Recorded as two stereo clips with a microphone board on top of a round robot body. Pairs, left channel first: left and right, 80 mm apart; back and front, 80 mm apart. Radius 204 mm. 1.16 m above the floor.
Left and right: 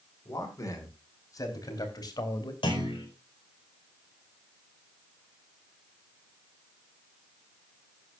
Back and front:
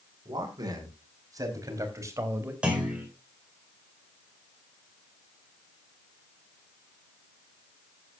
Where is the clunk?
75° left, 4.5 m.